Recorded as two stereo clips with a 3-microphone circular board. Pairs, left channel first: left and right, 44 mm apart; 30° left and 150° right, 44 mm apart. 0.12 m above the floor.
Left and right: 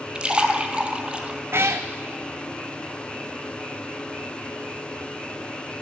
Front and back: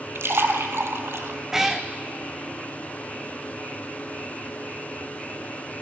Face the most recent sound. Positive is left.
turn(degrees=-70)